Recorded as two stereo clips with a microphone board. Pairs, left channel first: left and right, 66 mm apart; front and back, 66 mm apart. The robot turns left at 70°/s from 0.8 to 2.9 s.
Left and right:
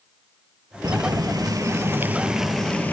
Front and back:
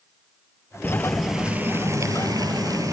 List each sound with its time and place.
0.8 s boiling: 65° right, 1.7 m; by 2.9 s 155° left, 1.7 m